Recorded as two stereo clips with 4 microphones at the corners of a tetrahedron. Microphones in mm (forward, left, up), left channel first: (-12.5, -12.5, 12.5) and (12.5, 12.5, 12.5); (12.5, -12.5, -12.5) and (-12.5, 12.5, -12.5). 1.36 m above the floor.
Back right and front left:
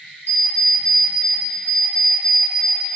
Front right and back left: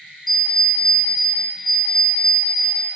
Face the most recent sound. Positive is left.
turn(degrees=-135)